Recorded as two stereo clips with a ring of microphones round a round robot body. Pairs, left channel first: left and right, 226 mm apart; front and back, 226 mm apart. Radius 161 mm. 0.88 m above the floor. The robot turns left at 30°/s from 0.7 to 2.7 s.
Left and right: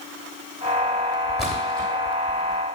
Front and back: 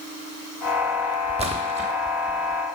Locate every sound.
1.4 s a splash: straight behind, 0.6 m; by 1.9 s 165° left, 0.6 m